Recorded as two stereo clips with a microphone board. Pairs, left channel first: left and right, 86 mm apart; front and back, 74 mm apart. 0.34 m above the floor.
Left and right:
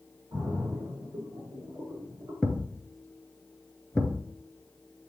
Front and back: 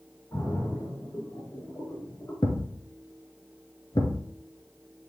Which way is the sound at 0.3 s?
45° right.